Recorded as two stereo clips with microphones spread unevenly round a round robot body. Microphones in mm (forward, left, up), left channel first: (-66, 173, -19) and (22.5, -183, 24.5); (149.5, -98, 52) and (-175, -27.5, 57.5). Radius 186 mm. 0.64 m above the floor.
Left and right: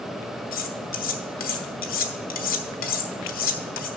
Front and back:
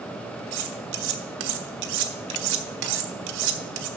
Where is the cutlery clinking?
170° left, 1.1 m.